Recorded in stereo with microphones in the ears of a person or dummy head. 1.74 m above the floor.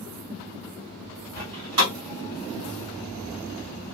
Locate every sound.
1.4 s a door slam: 15° right (ahead or behind), 2.5 m